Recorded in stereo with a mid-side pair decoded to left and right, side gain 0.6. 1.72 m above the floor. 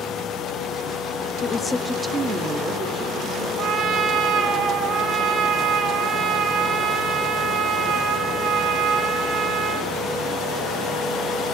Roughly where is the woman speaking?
Ahead left.